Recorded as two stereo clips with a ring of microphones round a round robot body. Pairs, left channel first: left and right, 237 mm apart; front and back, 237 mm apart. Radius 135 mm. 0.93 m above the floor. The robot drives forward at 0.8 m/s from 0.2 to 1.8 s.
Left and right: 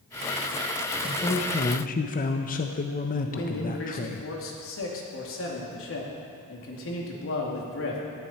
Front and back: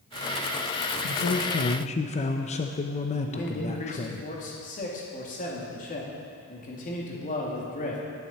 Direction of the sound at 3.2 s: 60° left.